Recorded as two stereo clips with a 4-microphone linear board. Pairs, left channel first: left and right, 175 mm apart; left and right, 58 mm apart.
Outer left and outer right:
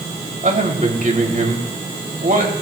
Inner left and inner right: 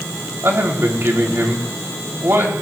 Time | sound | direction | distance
0.4 | a man speaking | 55° right (ahead or behind) | 2.5 m